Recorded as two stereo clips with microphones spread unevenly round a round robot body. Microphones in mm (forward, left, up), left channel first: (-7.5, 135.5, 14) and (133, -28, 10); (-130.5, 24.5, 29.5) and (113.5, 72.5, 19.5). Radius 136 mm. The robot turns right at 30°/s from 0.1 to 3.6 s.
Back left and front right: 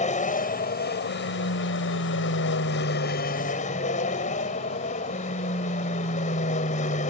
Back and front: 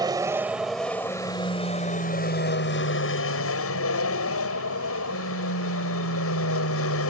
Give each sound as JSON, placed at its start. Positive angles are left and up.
{"t": 0.0, "sound": "an aircraft", "azimuth_deg": 80}